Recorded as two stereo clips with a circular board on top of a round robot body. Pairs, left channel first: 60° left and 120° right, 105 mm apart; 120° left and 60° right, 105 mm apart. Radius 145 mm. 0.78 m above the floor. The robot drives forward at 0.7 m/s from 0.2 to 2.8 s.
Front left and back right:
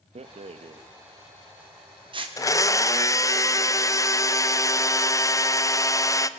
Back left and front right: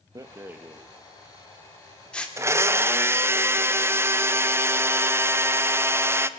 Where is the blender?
5° left, 1.0 m.